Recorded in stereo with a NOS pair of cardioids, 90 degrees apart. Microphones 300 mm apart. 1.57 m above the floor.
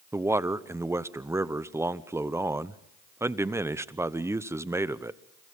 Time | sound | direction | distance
0.1 | a man speaking | 10° right | 0.9 m